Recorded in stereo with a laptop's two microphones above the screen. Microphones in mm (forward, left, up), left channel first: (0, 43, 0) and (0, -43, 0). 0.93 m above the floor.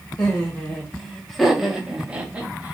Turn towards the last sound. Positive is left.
turn(degrees=-20)  # may be behind; listen again after turning